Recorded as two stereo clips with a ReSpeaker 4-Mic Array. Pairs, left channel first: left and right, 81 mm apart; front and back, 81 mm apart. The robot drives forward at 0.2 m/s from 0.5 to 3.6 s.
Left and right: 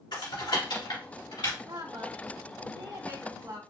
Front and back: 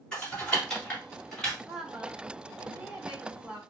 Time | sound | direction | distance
0.1 | typing on a keyboard | 75° left | 2 m
1.6 | a woman speaking | 95° right | 1.5 m